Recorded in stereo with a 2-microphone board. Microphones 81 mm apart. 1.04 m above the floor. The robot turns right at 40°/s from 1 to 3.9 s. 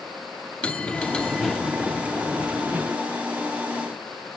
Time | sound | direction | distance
0.6 | a bell | 150° left | 0.6 m